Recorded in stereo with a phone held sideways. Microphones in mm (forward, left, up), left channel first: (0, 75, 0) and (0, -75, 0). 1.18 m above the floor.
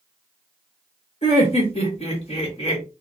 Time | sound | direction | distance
1.2 | laughter | 45° left (ahead or behind) | 1.5 m